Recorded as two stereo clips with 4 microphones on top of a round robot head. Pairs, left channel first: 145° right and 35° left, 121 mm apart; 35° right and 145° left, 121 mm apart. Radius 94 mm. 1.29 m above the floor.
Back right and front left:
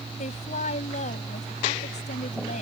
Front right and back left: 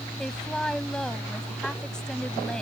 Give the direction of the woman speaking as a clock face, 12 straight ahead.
4 o'clock.